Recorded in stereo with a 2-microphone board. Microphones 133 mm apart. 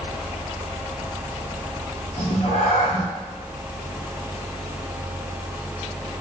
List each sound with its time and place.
2.2 s a cat meowing: 55° left (ahead or behind), 3 m